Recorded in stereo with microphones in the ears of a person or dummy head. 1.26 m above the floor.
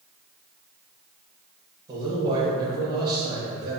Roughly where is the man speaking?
Right.